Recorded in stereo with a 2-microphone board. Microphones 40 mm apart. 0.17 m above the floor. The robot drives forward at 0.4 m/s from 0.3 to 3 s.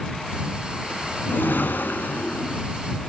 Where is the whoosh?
50° left (ahead or behind), 0.5 m; by 2.6 s 35° left (ahead or behind), 0.7 m.